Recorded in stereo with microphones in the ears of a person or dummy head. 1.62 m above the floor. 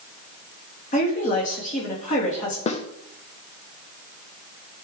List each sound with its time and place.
0.9 s a woman speaking: 45° left (ahead or behind), 3 m
2.7 s a snare drum: 35° left (ahead or behind), 0.9 m